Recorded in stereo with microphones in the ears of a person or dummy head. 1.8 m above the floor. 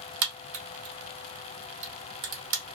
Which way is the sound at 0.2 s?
55° right (ahead or behind).